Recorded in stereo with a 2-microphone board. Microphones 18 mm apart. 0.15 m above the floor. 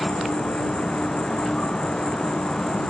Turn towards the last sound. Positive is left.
turn(degrees=65)  # may be behind; listen again after turning